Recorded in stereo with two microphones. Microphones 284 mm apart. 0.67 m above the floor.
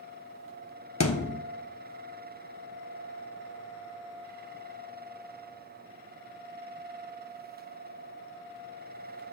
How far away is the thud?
About 1.2 m.